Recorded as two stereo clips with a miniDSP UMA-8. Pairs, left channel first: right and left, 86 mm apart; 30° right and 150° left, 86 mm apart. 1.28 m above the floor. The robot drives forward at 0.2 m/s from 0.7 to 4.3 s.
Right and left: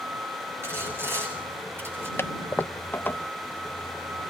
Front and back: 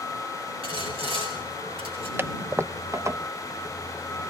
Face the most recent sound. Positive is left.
turn(degrees=-165)